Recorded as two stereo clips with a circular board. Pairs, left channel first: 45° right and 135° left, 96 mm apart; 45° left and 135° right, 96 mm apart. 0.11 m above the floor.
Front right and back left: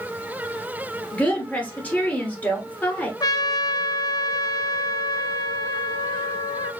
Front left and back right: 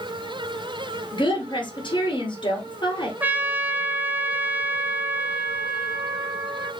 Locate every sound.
1.1 s a woman speaking: 25° left, 2.5 m
3.2 s a trumpet: 70° right, 0.7 m